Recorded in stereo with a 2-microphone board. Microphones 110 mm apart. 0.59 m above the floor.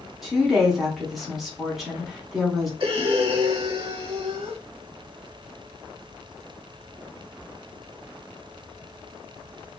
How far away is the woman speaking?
About 1.0 m.